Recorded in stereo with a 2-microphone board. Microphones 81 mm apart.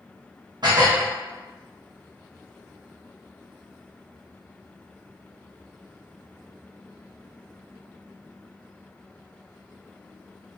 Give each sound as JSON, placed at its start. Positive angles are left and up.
{"t": 0.6, "sound": "dishes clattering", "side_deg": -65, "distance_m": 0.8}